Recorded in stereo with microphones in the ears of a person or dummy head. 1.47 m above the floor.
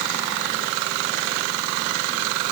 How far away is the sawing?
No sawing in this recording.